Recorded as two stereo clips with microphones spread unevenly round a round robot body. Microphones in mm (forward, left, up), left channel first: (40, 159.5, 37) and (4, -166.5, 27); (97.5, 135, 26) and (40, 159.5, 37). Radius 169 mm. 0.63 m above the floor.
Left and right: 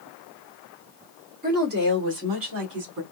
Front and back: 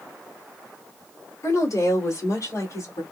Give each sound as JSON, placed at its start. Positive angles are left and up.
{"t": 1.4, "sound": "a woman speaking", "azimuth_deg": -35, "distance_m": 1.8}